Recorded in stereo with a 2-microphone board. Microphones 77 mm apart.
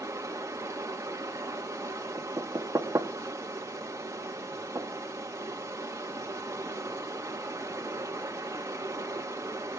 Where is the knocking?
40° right (ahead or behind), 1.7 m.